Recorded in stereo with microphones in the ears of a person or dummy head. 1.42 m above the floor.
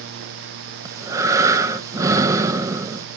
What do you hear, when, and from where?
0.8 s breathing: 20° right (ahead or behind), 1.4 m